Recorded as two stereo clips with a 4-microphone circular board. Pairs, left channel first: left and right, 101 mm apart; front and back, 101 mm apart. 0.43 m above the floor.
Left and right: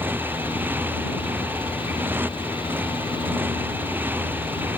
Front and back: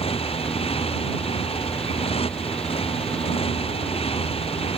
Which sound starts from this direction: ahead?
A motorcycle, at 0.0 s.